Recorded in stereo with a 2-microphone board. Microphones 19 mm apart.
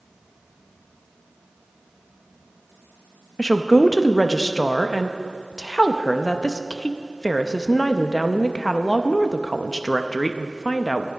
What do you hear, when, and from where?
3.4 s a woman speaking: 30° left (ahead or behind), 0.5 m